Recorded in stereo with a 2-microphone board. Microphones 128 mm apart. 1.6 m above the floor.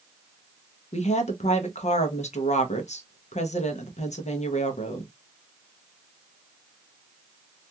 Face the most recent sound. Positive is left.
turn(degrees=65)  # may be behind; listen again after turning